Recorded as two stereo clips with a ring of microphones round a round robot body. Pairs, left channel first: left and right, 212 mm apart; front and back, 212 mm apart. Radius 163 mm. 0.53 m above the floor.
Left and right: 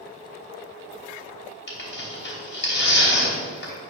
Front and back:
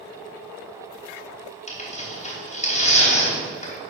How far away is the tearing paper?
About 3 m.